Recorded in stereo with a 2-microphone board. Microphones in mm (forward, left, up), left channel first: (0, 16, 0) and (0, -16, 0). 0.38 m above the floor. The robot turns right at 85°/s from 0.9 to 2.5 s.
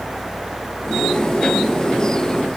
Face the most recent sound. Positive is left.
No sound to turn to.